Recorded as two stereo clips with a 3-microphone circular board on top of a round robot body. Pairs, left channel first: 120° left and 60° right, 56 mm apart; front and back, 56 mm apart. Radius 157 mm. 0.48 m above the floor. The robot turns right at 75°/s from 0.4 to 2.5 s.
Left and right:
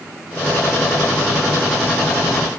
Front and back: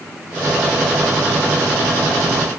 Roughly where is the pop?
No pop in this recording.